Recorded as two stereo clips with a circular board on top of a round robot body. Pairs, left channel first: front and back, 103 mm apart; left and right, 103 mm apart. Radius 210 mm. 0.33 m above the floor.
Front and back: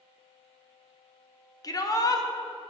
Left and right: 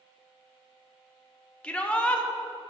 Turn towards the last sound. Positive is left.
turn(degrees=15)